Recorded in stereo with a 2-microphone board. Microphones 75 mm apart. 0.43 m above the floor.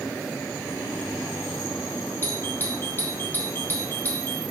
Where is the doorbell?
25° left (ahead or behind), 1.6 m.